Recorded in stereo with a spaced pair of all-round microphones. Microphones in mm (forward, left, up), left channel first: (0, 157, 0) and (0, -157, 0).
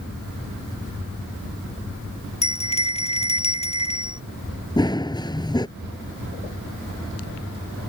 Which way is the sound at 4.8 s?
15° left (ahead or behind).